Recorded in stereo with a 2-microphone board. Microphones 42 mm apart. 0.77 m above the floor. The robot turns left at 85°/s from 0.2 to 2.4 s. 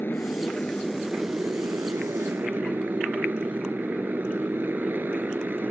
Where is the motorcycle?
60° left; by 5.7 s 125° right.